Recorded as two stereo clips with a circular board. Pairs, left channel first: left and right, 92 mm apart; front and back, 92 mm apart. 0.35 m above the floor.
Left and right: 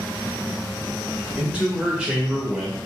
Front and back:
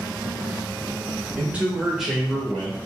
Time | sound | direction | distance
1.4 | a man speaking | 145° right | 1.3 m